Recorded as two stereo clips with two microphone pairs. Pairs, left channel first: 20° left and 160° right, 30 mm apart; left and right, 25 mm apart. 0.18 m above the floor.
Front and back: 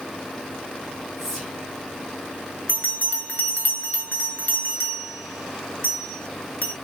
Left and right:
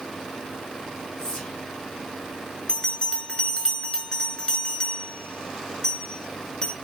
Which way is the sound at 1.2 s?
110° left.